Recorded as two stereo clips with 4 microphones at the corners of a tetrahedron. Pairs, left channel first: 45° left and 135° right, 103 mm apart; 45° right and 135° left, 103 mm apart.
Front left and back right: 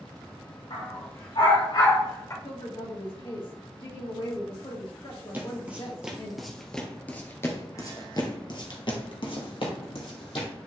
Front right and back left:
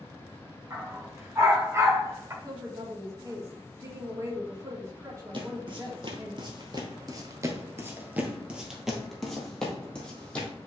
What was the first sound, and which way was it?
A dog barking, 70° left.